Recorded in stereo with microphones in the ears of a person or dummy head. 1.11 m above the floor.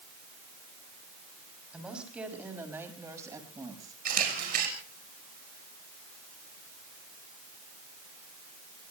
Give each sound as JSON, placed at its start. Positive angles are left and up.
{"t": 1.7, "sound": "a woman speaking", "side_deg": 0, "distance_m": 6.0}
{"t": 4.0, "sound": "a camera shutter", "side_deg": -45, "distance_m": 5.0}